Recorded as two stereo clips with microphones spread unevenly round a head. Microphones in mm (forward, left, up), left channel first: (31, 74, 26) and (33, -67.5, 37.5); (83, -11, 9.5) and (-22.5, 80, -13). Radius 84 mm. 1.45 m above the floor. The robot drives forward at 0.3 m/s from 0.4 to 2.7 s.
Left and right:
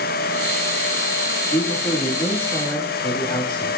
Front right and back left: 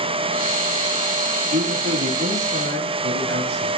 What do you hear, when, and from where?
1.5 s a man speaking: 155° left, 3 m